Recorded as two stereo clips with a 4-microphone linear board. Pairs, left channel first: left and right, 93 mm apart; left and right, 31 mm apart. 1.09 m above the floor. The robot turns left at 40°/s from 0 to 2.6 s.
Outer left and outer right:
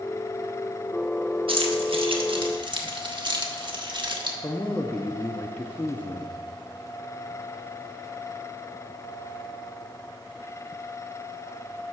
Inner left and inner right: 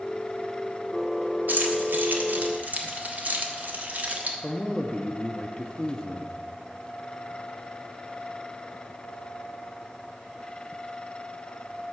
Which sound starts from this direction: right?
Keys jangling, at 1.5 s.